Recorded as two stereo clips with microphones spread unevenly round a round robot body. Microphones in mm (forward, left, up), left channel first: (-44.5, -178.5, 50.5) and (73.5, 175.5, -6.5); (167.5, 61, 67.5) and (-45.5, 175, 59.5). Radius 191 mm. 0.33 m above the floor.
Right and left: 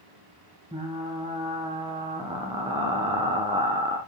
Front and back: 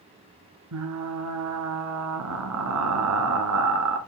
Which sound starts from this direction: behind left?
Frying, at 0.7 s.